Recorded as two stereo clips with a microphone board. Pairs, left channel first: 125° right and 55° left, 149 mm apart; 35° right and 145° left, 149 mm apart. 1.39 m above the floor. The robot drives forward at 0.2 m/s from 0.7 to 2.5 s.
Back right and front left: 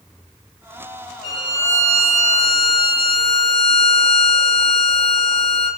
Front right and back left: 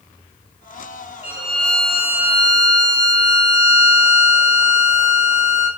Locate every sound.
1.2 s a violin: 175° right, 1.2 m; by 5.7 s straight behind, 1.3 m